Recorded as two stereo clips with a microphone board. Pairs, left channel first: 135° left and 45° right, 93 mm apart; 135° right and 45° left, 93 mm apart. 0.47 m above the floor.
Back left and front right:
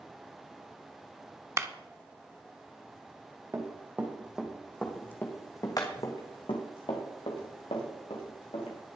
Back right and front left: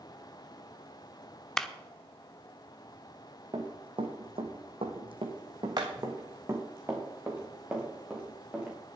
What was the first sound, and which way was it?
A clap, 55° right.